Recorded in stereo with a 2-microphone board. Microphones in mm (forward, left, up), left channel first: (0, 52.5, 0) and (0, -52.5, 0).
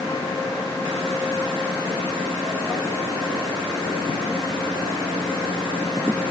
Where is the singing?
No singing in this recording.